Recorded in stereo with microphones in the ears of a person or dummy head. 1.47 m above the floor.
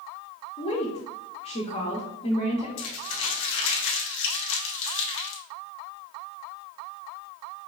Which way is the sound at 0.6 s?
30° left (ahead or behind).